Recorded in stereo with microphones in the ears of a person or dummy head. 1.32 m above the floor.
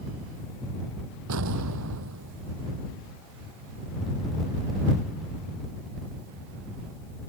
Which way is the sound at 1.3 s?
80° right.